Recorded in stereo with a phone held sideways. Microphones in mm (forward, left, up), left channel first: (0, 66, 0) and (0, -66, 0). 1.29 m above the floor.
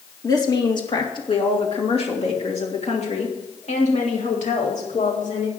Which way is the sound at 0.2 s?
30° left (ahead or behind).